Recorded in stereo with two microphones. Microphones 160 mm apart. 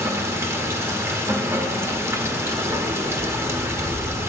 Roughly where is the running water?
Centre.